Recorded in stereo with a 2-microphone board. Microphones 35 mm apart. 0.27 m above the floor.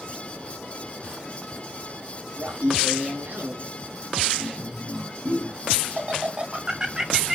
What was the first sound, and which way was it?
Laughter, 65° right (ahead or behind).